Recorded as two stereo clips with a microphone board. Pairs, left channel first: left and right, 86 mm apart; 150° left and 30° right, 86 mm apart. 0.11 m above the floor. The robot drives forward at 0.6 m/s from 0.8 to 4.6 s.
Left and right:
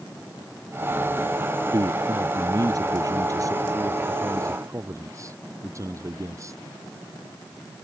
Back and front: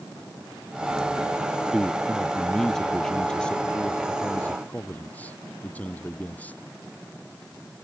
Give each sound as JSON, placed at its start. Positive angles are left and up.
{"t": 1.7, "sound": "a man speaking", "azimuth_deg": -115}